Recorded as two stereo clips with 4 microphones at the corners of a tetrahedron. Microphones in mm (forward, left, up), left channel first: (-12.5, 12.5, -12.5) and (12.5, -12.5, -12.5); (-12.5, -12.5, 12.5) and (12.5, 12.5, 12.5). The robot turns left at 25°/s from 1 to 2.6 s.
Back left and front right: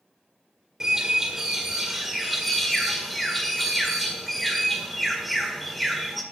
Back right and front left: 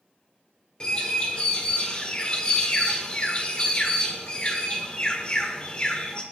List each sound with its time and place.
0.8 s a bird: 100° right, 1.4 m; by 6.2 s 140° right, 1.4 m